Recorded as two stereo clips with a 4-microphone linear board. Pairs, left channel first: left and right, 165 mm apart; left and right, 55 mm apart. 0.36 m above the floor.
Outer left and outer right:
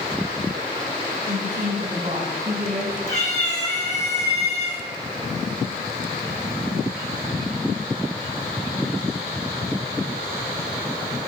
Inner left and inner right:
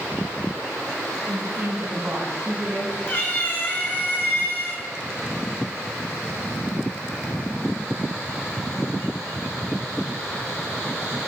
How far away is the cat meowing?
About 3 m.